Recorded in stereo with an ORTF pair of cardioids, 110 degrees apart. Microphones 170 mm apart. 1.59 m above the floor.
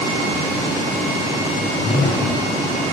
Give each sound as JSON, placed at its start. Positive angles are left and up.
{"t": 1.6, "sound": "a whoosh", "azimuth_deg": 55, "distance_m": 1.8}